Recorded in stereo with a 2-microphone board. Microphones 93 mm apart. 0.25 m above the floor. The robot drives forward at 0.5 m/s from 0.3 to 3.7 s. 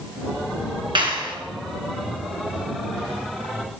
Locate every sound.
0.9 s a clap: 60° right (ahead or behind), 2 m; by 1.4 s 55° right (ahead or behind), 2.5 m